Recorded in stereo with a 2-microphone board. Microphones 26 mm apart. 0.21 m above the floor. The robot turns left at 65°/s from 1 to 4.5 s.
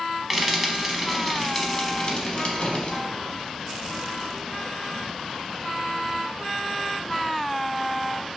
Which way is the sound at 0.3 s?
10° right (ahead or behind).